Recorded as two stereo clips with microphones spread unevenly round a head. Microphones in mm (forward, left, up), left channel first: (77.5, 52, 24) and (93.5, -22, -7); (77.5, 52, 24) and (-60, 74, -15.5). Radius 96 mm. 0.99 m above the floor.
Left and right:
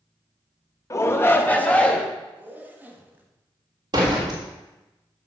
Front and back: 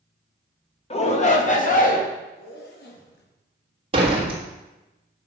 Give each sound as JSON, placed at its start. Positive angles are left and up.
{"t": 0.9, "sound": "a shout", "azimuth_deg": 45, "distance_m": 1.5}
{"t": 2.4, "sound": "a zipper", "azimuth_deg": -15, "distance_m": 1.5}
{"t": 3.9, "sound": "a door slam", "azimuth_deg": -130, "distance_m": 1.1}